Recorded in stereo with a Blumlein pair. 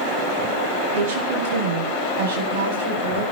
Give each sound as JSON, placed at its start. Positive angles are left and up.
{"t": 0.9, "sound": "a woman speaking", "azimuth_deg": -55, "distance_m": 7.5}